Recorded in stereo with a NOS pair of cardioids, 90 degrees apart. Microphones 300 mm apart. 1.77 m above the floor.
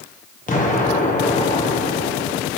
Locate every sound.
0.5 s an explosion: 25° left, 2 m